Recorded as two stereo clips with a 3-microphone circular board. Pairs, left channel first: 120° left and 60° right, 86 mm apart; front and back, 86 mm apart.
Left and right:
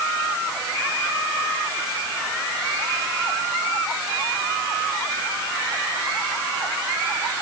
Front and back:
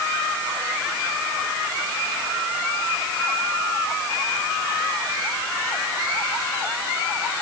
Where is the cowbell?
I don't hear a cowbell.